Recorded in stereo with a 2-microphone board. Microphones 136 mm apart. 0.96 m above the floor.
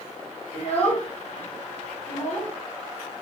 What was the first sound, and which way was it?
A child speaking, 50° left (ahead or behind).